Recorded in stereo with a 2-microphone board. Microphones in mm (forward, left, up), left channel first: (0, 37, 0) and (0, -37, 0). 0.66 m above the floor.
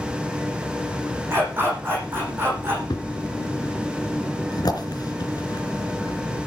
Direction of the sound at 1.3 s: 30° right (ahead or behind).